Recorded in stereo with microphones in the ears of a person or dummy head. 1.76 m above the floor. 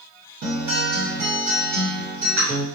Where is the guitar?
50° right (ahead or behind), 1.5 m.